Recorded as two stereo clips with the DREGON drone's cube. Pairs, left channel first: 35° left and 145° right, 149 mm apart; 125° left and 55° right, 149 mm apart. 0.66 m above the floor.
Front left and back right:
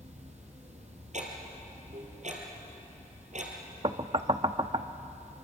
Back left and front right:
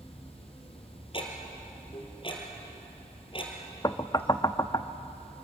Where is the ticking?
Straight behind, 3.5 m.